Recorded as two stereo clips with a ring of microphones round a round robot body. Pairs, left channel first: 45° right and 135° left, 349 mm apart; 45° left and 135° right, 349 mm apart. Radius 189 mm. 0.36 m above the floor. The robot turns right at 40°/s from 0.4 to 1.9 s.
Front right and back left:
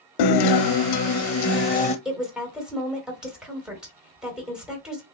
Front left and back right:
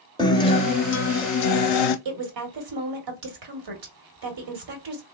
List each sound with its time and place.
0.2 s a guitar: 35° right, 0.6 m; by 1.9 s 25° left, 0.6 m
2.0 s a woman speaking: 135° right, 1.7 m